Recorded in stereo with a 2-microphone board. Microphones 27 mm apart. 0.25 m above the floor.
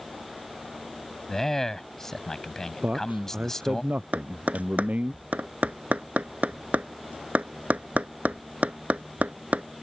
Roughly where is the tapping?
Right.